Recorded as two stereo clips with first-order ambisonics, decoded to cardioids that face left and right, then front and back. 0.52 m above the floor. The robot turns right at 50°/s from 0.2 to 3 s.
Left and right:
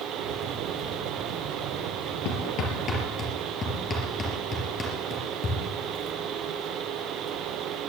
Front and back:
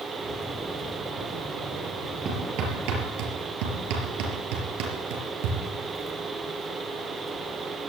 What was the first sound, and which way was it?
Hammering, 120° left.